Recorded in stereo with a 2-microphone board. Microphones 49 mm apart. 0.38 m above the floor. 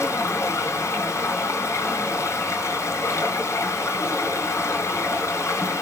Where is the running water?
70° left (ahead or behind), 3.5 m.